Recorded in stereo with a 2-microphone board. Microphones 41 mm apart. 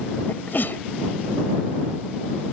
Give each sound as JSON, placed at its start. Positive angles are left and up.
{"t": 0.3, "sound": "a sneeze", "side_deg": 60}